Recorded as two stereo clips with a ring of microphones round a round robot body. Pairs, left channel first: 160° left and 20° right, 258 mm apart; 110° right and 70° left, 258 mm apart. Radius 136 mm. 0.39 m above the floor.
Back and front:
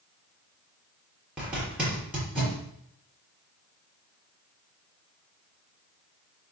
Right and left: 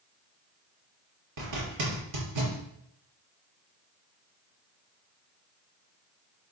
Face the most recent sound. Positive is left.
turn(degrees=65)